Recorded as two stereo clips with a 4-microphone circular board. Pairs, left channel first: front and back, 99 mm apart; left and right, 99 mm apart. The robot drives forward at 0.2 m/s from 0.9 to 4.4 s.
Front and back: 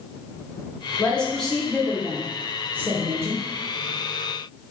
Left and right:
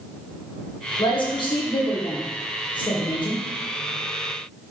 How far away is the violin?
I don't hear a violin.